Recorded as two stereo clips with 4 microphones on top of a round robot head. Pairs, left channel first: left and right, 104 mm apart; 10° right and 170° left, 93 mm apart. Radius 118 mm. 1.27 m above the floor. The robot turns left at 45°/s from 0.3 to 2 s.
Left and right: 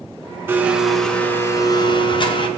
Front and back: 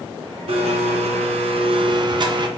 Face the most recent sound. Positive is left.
turn(degrees=130)